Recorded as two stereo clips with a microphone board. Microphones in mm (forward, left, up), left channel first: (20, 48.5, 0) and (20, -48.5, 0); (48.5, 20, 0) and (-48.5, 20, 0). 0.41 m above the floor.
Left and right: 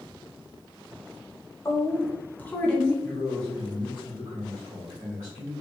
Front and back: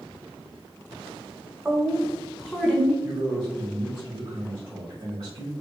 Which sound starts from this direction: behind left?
A woman speaking, at 1.6 s.